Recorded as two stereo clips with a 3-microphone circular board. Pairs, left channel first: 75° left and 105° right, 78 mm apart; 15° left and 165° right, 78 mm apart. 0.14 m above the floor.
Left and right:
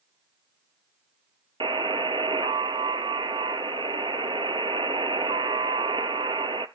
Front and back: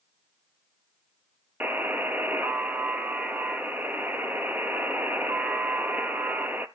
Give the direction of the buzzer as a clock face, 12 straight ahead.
3 o'clock.